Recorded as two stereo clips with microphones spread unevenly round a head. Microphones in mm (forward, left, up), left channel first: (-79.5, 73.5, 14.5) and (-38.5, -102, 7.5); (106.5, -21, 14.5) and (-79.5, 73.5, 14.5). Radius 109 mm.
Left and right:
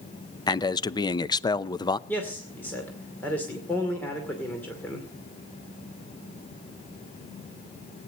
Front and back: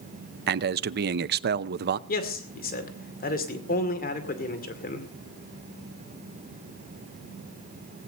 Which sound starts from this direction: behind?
A man speaking, at 0.5 s.